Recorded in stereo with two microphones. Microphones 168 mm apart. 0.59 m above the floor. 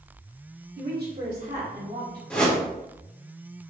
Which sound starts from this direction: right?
A woman speaking, at 0.8 s.